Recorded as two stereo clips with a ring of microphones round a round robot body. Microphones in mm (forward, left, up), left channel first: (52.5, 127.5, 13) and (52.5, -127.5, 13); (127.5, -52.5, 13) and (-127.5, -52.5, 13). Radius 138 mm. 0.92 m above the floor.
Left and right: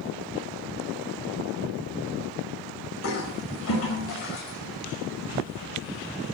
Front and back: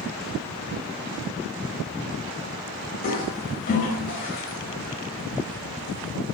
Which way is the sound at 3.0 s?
60° left.